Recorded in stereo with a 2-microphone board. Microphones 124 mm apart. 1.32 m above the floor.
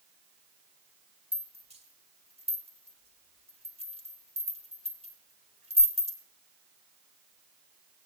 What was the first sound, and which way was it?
A rattle, 50° right (ahead or behind).